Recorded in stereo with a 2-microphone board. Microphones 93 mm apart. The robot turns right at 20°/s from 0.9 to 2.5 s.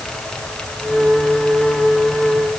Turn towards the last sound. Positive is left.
No sound to turn to.